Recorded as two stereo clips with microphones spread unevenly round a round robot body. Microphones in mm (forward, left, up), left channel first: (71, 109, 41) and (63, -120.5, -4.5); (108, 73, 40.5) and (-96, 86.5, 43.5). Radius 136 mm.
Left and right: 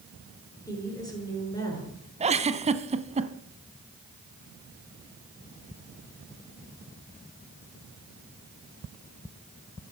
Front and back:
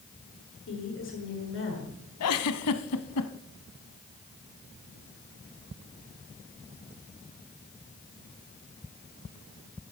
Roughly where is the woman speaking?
Ahead.